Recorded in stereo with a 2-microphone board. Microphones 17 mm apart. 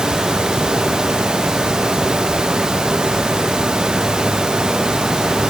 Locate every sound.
Only background noise.